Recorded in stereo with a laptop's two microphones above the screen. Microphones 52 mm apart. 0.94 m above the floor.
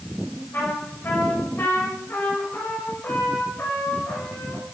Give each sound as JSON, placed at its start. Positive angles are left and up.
{"t": 0.5, "sound": "a trumpet", "side_deg": 55, "distance_m": 4.0}